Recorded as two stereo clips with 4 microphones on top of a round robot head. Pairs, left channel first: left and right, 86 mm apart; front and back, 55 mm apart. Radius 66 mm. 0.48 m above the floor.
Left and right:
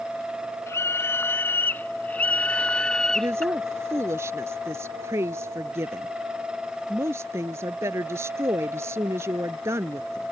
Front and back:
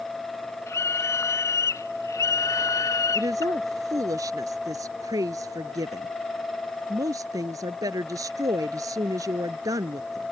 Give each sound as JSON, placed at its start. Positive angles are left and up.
{"t": 0.7, "sound": "a scream", "azimuth_deg": 30}
{"t": 3.1, "sound": "a woman speaking", "azimuth_deg": -155}